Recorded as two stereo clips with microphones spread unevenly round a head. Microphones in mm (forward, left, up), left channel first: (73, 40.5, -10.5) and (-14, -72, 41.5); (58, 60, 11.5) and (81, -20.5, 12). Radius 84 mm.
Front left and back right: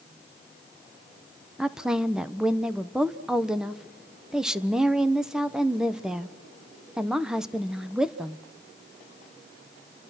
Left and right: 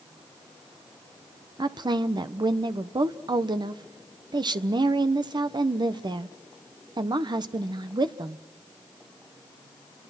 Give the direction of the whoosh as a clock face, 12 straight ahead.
No whoosh in this recording.